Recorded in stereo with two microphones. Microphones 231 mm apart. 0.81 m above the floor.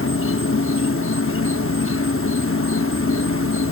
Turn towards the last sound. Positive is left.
turn(degrees=65)  # may be behind; listen again after turning